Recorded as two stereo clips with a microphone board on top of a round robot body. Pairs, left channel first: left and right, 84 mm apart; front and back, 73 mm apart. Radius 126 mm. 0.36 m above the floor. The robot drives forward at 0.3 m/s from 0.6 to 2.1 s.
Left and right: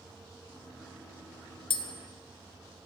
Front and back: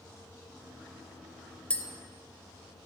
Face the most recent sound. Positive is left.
turn(degrees=85)